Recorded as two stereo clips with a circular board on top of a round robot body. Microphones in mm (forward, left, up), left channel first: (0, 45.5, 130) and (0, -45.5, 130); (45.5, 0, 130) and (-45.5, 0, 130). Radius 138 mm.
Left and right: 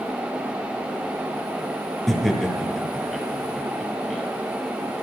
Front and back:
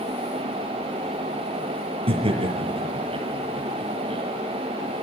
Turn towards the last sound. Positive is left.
turn(degrees=180)